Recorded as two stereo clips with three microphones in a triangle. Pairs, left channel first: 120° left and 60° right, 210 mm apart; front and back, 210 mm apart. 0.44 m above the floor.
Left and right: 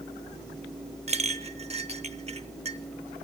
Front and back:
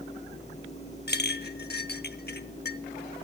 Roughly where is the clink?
Ahead.